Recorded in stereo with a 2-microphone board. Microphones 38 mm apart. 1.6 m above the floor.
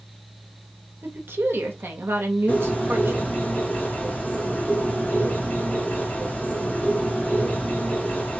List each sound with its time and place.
1.0 s a woman speaking: 80° right, 0.8 m
2.5 s a bird: 55° left (ahead or behind), 1.2 m